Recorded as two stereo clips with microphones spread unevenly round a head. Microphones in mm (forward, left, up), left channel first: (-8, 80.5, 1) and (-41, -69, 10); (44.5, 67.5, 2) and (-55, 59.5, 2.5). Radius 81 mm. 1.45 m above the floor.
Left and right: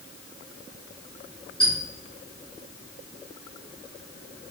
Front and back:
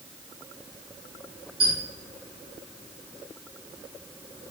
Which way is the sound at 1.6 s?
165° left.